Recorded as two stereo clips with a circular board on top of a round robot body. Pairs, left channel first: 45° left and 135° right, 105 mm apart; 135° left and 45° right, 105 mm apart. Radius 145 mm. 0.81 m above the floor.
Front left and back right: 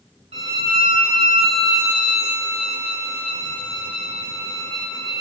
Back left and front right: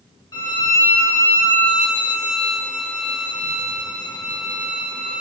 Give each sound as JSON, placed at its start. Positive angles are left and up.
{"t": 0.3, "sound": "a violin", "azimuth_deg": -170, "distance_m": 0.7}